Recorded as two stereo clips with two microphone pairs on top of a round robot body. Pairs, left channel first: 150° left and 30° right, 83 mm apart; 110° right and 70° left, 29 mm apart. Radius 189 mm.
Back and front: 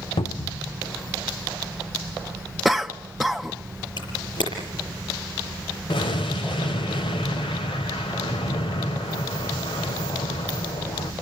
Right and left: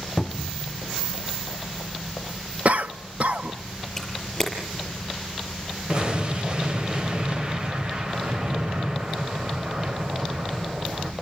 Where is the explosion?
125° left, 1.4 m.